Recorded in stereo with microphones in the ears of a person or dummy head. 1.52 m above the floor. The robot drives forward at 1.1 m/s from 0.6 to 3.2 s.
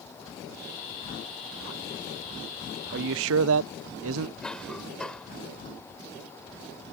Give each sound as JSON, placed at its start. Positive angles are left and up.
{"t": 2.9, "sound": "a man speaking", "side_deg": -60}
{"t": 4.4, "sound": "a cough", "side_deg": 10}